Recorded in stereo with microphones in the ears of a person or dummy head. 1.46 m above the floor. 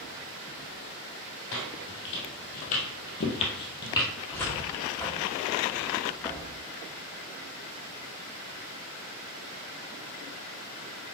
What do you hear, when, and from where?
1.5 s footsteps: 55° left (ahead or behind), 2.5 m; by 4.1 s 20° left (ahead or behind), 2 m
4.3 s a cupboard door: 5° left (ahead or behind), 1.3 m